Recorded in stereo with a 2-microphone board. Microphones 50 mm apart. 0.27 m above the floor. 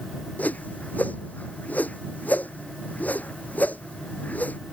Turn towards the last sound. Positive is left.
turn(degrees=30)  # may be behind; listen again after turning